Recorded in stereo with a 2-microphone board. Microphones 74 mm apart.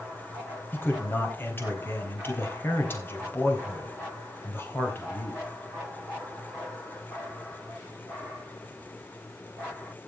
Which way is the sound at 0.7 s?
30° left (ahead or behind).